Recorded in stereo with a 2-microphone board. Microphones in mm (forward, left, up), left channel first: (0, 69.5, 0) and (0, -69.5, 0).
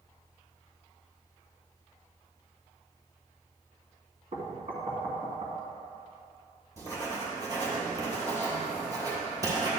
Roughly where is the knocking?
Right.